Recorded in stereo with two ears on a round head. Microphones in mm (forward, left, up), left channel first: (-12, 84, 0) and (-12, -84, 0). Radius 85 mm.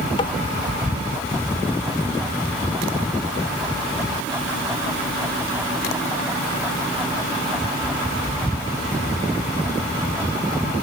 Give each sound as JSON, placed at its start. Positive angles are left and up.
{"t": 0.2, "sound": "tapping", "side_deg": 30}